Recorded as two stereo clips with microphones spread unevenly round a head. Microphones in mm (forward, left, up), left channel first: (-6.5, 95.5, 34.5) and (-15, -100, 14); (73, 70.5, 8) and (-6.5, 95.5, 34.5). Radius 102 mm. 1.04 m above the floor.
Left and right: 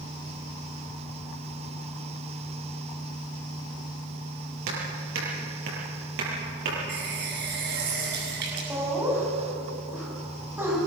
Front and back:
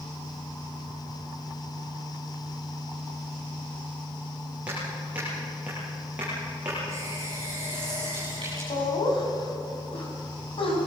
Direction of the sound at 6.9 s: 130° right.